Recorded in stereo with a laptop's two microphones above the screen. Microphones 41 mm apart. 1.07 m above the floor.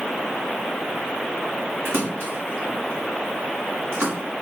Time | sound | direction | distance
1.9 | a splash | 75° right (ahead or behind) | 1.6 m